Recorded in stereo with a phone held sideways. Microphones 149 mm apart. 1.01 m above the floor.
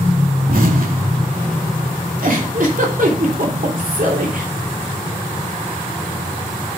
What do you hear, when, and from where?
0.5 s an explosion: 70° right (ahead or behind), 2.5 m
2.2 s a giggle: 65° right (ahead or behind), 3 m